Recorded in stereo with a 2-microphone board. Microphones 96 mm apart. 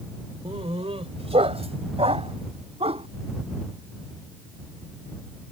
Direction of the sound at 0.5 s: 75° right (ahead or behind).